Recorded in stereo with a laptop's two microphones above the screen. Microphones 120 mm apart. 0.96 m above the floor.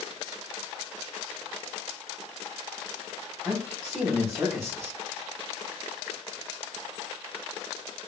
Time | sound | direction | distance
3.5 | a man speaking | 5° right (ahead or behind) | 3 m